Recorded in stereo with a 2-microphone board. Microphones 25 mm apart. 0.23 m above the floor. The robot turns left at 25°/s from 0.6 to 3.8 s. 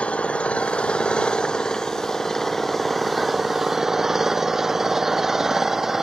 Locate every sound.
0.0 s an engine running: 65° left; by 6.0 s 15° right